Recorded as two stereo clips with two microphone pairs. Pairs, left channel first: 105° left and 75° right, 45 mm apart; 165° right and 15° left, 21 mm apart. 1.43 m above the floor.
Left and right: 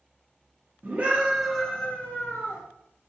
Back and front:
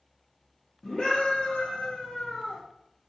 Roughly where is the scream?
Behind right.